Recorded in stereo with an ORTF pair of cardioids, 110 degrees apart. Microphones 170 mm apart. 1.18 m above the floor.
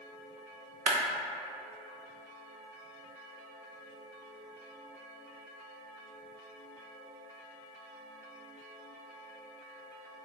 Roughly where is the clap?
Ahead right.